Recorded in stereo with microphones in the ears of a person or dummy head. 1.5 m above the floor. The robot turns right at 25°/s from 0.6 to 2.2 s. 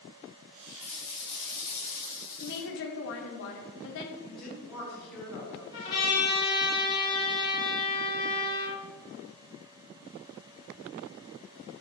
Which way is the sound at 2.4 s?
60° left (ahead or behind).